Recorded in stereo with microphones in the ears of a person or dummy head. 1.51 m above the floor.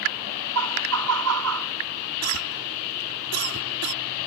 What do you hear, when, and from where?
0.6 s laughter: 90° right
2.2 s a cough: 80° right